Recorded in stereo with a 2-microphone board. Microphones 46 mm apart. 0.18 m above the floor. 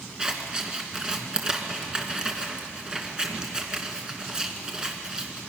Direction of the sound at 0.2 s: 20° right (ahead or behind).